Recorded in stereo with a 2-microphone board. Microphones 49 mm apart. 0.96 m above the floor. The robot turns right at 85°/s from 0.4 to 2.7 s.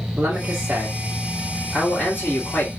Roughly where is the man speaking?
Right.